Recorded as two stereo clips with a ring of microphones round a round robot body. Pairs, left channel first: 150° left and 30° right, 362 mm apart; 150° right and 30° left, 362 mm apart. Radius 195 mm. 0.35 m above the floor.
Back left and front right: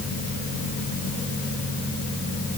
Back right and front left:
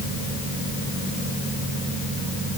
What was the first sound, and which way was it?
Only background noise.